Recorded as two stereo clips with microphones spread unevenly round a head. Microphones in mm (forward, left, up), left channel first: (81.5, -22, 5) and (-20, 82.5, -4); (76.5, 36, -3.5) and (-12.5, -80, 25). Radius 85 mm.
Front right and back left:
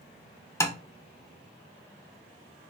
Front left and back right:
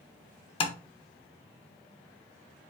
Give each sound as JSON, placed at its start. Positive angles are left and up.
{"t": 0.6, "sound": "tapping", "azimuth_deg": 5, "distance_m": 0.8}